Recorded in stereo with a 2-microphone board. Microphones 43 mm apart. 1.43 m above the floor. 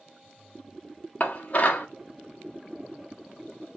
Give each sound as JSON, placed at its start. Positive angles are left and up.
{"t": 1.2, "sound": "dishes clattering", "side_deg": 40, "distance_m": 0.9}